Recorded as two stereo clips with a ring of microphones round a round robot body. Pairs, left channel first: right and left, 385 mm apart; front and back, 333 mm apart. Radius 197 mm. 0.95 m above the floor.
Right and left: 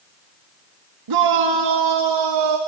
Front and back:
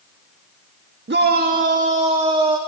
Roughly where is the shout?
Behind left.